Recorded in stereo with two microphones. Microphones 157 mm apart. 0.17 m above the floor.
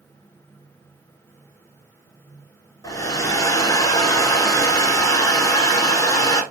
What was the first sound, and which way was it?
A hair dryer, 20° left (ahead or behind).